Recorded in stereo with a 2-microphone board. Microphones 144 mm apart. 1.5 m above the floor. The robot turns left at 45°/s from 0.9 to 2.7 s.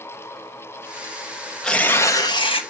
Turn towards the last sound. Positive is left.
turn(degrees=130)